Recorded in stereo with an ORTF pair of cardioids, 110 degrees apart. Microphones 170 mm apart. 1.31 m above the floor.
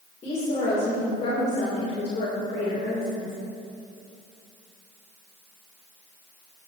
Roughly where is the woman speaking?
Ahead left.